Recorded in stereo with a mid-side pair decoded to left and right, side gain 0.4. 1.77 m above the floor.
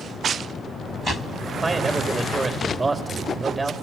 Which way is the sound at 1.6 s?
30° right.